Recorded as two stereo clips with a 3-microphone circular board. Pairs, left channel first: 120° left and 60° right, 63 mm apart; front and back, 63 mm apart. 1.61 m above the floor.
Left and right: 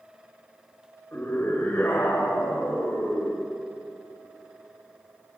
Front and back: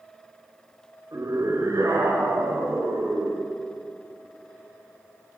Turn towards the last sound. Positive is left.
turn(degrees=175)